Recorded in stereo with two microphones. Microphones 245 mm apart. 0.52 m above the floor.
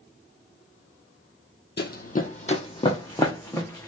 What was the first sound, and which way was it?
Running footsteps, 45° left (ahead or behind).